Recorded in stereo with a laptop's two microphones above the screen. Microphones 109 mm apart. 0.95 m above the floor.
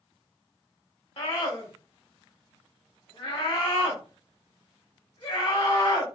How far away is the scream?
About 2 m.